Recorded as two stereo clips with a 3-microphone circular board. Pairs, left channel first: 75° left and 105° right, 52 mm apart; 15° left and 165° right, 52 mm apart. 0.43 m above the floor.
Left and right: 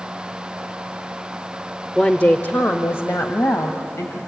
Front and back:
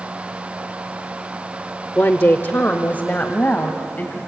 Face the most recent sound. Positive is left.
turn(degrees=70)